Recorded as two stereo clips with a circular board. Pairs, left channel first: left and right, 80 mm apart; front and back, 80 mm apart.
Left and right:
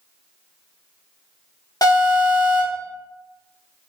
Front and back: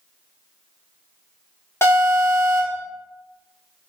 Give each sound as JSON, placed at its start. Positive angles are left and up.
{"t": 1.8, "sound": "an alarm", "azimuth_deg": 55, "distance_m": 0.9}